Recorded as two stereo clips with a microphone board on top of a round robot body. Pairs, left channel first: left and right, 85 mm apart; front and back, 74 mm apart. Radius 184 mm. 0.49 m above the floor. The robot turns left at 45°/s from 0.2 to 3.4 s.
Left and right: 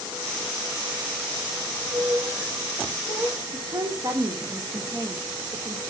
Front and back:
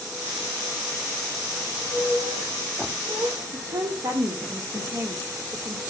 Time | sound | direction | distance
1.6 | a squeak | 100° right | 6 m
3.5 | a woman speaking | 140° right | 2 m